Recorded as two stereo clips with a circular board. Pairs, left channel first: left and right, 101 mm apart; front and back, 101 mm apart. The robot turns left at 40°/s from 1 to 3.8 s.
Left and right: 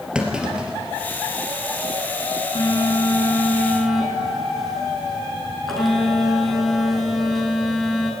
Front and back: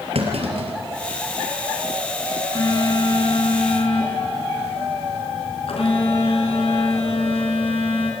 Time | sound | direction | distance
0.1 | a clunk | 170° right | 3.5 m
2.5 | a phone buzzing | 50° left | 4.5 m